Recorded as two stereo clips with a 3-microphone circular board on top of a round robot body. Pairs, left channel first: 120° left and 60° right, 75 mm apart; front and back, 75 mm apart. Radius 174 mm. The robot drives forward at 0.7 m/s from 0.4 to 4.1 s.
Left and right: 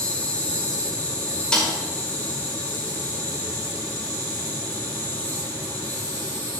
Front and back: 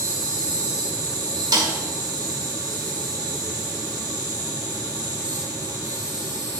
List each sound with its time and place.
0.0 s an insect: 170° right, 2.5 m; by 6.6 s 175° right, 5 m
1.5 s a snare drum: 160° right, 5 m